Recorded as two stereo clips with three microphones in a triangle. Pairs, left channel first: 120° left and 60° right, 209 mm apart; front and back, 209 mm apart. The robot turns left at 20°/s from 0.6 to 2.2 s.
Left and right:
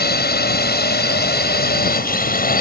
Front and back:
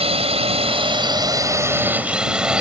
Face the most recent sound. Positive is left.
turn(degrees=95)